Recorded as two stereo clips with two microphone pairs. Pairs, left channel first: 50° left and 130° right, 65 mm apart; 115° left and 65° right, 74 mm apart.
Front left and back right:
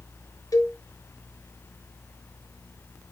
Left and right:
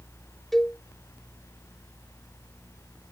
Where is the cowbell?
30° left, 1.3 m.